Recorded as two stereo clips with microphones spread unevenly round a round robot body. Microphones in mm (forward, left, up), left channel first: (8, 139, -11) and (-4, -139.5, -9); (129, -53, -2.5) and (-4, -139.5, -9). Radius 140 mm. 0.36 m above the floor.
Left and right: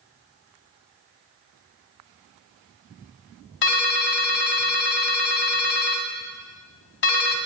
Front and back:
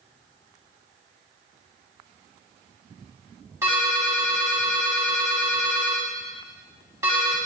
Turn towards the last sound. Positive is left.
turn(degrees=135)